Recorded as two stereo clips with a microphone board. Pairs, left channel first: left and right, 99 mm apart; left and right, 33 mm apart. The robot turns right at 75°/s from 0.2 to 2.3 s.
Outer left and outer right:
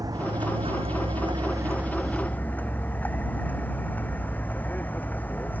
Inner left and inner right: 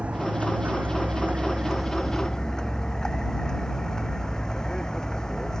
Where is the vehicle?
140° right; by 5.6 s 20° left.